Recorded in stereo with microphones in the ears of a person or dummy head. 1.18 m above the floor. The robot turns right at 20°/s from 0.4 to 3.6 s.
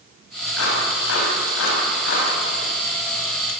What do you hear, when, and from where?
0.6 s a clap: 90° left, 6.5 m; by 2.3 s 55° left (ahead or behind), 6.5 m